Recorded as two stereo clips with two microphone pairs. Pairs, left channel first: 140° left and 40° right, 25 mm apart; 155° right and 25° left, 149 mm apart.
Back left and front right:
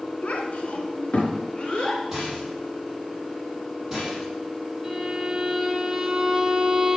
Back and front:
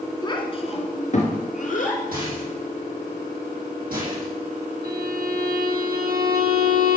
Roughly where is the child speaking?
Behind left.